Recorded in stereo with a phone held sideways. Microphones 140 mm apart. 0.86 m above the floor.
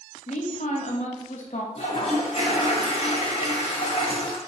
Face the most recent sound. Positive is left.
turn(degrees=45)  # may be behind; listen again after turning